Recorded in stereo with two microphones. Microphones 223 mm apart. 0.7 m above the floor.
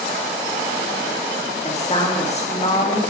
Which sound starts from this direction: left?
A woman speaking, at 1.6 s.